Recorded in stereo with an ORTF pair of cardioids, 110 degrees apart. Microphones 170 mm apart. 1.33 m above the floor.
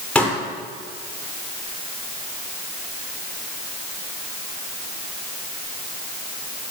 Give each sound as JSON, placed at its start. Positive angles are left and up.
{"t": 0.1, "sound": "a pop", "azimuth_deg": 5, "distance_m": 5.0}